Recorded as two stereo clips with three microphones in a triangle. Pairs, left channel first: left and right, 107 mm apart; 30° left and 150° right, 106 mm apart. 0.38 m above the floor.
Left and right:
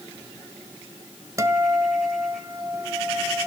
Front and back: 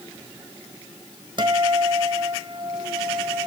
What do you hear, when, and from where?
1.4 s a guitar: 140° right, 1.6 m